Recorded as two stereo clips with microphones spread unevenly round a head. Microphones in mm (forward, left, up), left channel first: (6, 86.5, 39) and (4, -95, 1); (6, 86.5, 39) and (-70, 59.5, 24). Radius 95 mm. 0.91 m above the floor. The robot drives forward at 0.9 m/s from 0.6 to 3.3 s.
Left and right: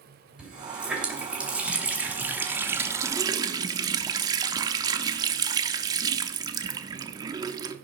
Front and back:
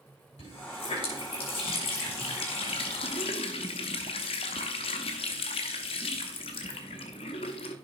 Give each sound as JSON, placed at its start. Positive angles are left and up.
{"t": 0.4, "sound": "a running tap", "azimuth_deg": -5, "distance_m": 3.0}